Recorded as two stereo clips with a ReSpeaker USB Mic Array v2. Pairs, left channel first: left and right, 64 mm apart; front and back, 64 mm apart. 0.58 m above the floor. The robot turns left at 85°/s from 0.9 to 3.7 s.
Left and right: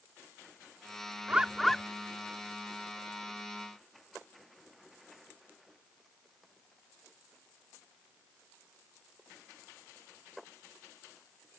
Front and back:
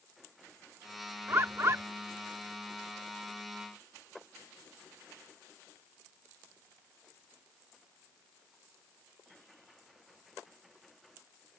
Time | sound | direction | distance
1.3 | a bird | 150° right | ?